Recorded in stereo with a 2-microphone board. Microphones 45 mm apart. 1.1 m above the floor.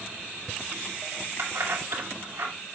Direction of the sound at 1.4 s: 65° right (ahead or behind).